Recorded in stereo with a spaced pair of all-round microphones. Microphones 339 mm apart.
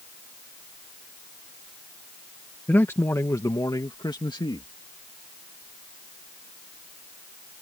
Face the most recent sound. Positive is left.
turn(degrees=15)  # may be behind; listen again after turning